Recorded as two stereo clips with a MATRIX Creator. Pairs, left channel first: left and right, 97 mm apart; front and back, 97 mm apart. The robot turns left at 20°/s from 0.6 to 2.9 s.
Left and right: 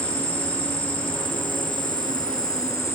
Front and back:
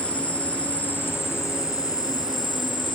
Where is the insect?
75° left, 0.8 m; by 3.0 s 30° left, 0.8 m.